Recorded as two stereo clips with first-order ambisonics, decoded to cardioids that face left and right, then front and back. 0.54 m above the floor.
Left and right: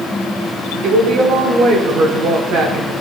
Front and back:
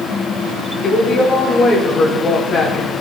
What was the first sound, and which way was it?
A woman speaking, 65° right.